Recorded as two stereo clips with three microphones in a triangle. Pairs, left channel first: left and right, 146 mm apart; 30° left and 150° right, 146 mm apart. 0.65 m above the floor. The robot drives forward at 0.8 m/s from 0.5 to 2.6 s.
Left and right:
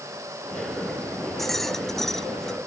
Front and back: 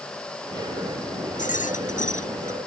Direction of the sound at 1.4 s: Straight ahead.